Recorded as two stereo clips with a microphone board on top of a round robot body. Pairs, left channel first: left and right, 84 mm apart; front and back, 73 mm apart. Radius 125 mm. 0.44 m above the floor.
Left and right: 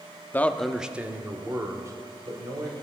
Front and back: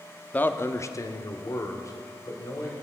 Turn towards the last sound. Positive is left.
turn(degrees=-45)